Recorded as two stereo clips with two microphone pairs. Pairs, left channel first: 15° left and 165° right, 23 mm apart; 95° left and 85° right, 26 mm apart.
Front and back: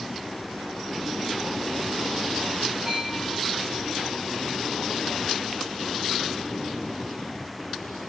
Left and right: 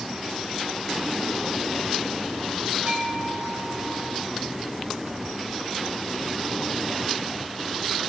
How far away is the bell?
About 7.5 m.